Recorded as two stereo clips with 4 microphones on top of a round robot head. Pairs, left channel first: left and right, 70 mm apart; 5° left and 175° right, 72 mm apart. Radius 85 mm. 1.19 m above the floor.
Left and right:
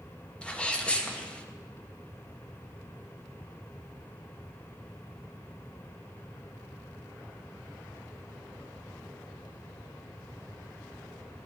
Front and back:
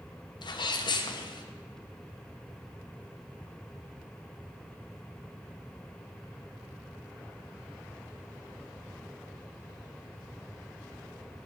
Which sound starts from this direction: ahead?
A sneeze, at 0.4 s.